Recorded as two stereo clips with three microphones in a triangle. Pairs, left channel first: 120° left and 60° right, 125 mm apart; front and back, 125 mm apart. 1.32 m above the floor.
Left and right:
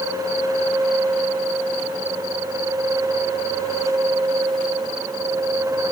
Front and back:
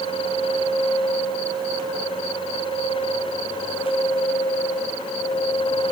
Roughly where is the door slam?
I don't hear a door slam.